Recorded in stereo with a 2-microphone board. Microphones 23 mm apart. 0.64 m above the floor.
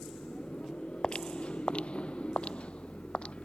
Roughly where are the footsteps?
Left.